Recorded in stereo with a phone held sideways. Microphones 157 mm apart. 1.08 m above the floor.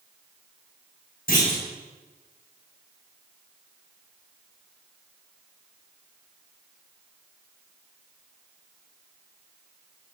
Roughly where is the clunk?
Left.